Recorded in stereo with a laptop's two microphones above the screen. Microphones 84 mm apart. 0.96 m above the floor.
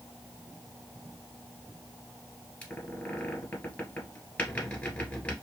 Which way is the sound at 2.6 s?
15° left (ahead or behind).